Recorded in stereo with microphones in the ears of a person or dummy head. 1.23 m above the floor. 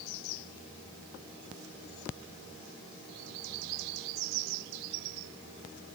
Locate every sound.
Only background noise.